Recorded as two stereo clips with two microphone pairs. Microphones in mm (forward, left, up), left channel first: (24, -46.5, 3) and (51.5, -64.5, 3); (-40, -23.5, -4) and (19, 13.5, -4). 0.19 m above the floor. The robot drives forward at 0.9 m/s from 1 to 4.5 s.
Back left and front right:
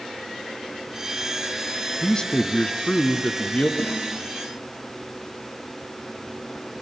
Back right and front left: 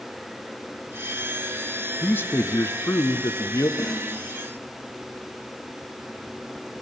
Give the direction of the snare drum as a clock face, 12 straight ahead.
7 o'clock.